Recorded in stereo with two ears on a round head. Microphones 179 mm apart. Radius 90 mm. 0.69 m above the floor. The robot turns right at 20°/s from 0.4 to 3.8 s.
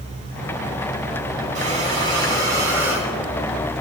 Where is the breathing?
35° right, 2.5 m; by 3.1 s 5° right, 2.5 m.